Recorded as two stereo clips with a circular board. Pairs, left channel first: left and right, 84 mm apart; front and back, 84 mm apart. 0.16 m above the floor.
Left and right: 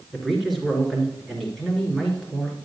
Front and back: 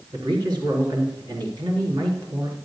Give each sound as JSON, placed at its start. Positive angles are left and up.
{"t": 0.1, "sound": "a man speaking", "azimuth_deg": 180, "distance_m": 2.5}